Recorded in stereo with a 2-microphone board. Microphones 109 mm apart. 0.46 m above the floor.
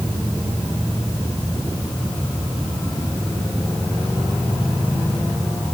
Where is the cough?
No cough in this recording.